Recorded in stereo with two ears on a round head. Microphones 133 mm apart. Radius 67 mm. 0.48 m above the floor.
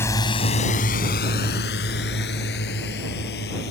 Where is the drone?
15° left (ahead or behind); by 3.7 s 80° left.